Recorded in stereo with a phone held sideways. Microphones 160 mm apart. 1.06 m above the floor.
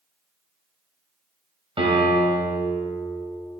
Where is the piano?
35° right (ahead or behind), 2 m.